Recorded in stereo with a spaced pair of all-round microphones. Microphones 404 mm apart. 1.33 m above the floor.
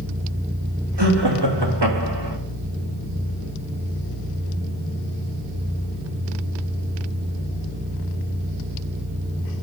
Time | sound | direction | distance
1.0 | laughter | 80° right | 3 m